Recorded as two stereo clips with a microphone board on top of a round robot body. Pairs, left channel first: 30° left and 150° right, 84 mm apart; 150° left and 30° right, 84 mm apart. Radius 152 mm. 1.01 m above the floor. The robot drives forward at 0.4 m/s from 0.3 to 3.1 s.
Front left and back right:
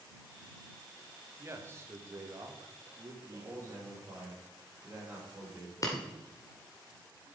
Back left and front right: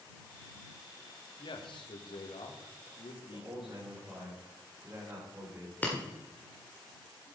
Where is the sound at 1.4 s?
155° left, 1.6 m; by 3.8 s 160° left, 2 m.